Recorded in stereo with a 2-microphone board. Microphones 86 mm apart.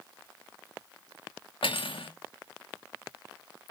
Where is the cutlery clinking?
85° left, 0.6 m.